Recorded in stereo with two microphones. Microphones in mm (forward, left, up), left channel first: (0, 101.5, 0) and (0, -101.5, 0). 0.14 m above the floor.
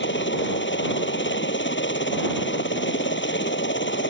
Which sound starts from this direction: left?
A helicopter, at 0.0 s.